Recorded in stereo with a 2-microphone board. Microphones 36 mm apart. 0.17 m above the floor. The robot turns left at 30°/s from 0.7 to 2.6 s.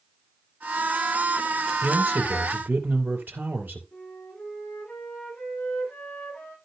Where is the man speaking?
65° right (ahead or behind), 4 m; by 3.8 s 60° right (ahead or behind), 4 m.